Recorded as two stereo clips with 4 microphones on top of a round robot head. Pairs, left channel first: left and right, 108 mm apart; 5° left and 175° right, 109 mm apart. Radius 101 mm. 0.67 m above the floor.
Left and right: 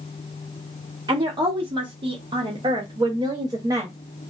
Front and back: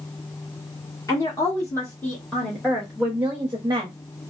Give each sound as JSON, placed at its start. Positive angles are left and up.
{"t": 1.1, "sound": "a woman speaking", "azimuth_deg": -50, "distance_m": 1.5}